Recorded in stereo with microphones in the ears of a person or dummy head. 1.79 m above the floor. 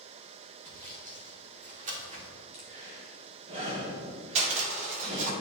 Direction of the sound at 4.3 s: 45° right (ahead or behind).